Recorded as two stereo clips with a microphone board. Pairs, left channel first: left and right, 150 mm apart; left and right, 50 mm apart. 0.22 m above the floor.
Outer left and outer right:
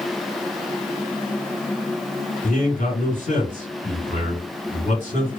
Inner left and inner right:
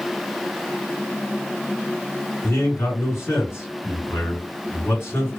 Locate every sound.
2.4 s a man speaking: 50° left (ahead or behind), 1.8 m